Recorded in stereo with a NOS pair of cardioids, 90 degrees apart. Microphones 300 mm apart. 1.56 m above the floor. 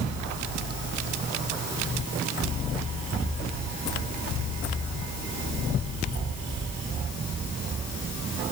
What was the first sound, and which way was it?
Only background noise.